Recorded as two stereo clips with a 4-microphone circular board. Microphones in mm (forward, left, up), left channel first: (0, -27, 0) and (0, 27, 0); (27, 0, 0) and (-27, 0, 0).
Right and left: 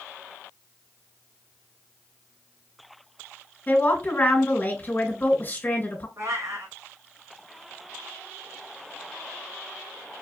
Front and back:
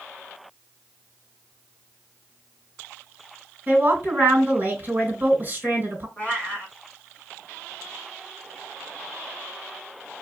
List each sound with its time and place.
3.7 s a woman speaking: 135° right, 2 m
6.2 s a cat meowing: 70° left, 2.5 m